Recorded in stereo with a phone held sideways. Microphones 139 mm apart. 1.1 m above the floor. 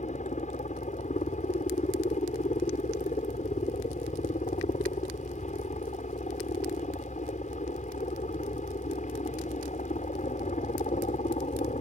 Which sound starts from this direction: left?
A helicopter, at 0.0 s.